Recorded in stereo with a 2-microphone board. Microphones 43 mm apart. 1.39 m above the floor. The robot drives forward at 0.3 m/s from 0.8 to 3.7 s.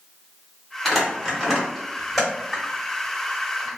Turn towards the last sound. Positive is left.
turn(degrees=0)  # may be behind; listen again after turning